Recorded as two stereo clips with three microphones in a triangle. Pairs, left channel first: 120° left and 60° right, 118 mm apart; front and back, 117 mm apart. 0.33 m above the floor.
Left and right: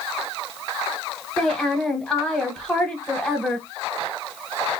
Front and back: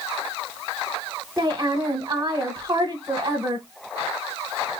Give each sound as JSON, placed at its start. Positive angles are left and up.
{"t": 1.4, "sound": "a woman speaking", "azimuth_deg": -170, "distance_m": 1.0}